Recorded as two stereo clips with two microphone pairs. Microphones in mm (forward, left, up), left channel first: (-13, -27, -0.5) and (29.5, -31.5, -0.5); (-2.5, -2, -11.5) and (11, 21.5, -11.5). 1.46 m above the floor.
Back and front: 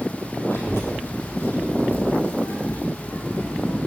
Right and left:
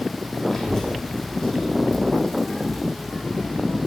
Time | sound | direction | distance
0.5 | a child speaking | 165° left | 3.5 m